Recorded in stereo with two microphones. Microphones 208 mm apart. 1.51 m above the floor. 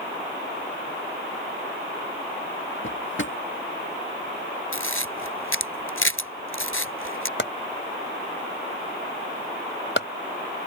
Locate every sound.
2.8 s a drawer: 70° left (ahead or behind)
4.7 s a camera shutter: 80° left
7.4 s chopping: 65° left (ahead or behind)